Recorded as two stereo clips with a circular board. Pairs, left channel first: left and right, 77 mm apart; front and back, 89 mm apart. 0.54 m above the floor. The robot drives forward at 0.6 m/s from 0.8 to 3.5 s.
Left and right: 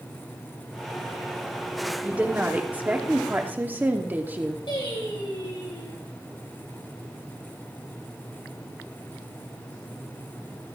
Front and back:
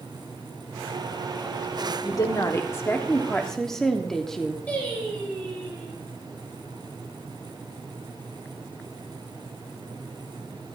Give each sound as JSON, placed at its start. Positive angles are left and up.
{"t": 2.0, "sound": "a woman speaking", "azimuth_deg": -20, "distance_m": 1.4}
{"t": 4.7, "sound": "singing", "azimuth_deg": 75, "distance_m": 5.0}